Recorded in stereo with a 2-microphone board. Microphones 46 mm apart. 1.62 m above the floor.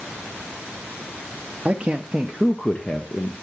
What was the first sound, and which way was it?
A man speaking, 25° right (ahead or behind).